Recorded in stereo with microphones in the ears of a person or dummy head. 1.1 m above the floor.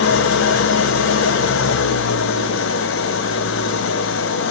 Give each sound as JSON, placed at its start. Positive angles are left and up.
{"t": 0.0, "sound": "an engine running", "side_deg": 70, "distance_m": 0.9}